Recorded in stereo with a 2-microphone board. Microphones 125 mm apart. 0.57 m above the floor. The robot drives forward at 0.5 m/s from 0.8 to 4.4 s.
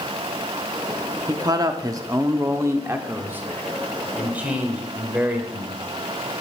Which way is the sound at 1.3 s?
35° right (ahead or behind).